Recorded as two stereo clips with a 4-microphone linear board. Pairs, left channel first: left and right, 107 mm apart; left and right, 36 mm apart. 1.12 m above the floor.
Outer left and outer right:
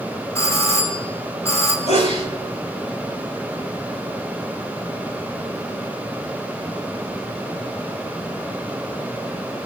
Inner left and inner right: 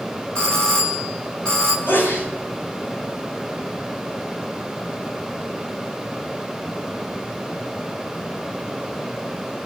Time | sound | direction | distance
0.3 | a doorbell | 25° left (ahead or behind) | 4.5 m
1.9 | a sneeze | 85° left | 8.5 m